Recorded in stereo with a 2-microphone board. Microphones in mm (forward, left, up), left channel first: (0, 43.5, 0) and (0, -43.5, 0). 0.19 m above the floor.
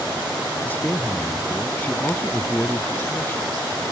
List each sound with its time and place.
0.7 s a man speaking: 20° left (ahead or behind)